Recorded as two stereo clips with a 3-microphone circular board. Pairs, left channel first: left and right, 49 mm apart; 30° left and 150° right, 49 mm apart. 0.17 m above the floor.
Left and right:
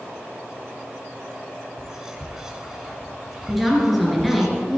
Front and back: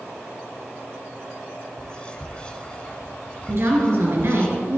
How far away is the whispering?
About 1.2 m.